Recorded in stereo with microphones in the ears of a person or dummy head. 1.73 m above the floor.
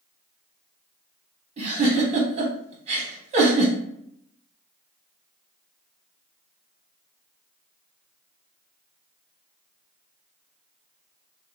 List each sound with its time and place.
1.6 s a giggle: 40° right (ahead or behind), 1.7 m